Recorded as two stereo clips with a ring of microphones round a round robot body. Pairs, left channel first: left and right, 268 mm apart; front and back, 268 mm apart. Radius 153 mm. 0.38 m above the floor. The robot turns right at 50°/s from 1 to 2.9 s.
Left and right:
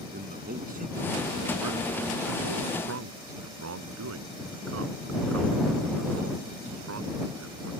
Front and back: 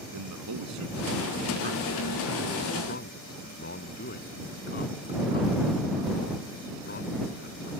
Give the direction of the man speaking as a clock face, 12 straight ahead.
5 o'clock.